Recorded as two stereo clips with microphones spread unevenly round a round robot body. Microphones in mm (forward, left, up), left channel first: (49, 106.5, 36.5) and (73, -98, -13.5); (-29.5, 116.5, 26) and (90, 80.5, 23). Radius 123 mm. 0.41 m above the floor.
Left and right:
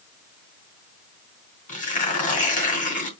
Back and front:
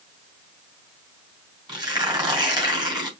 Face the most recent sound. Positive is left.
turn(degrees=40)